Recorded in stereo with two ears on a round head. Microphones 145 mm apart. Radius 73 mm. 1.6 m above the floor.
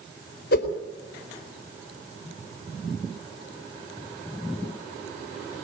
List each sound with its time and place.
0.5 s a whoosh: 70° left (ahead or behind), 4 m